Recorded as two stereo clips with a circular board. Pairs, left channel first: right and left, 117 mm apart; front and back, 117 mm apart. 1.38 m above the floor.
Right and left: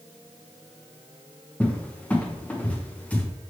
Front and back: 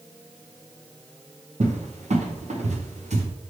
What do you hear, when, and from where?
1.6 s a cupboard door: 170° right, 0.7 m